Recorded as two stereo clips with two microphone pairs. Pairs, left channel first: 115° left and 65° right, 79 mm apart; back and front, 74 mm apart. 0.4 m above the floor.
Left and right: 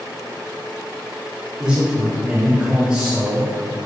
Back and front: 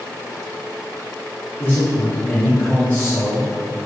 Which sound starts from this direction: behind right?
A man speaking, at 1.6 s.